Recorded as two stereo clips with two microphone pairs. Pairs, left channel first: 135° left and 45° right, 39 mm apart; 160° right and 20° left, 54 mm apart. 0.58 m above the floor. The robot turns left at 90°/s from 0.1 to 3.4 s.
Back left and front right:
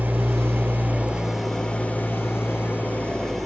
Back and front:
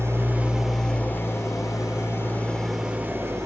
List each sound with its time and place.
0.0 s an engine running: 10° right, 7 m; by 3.5 s 50° left, 7 m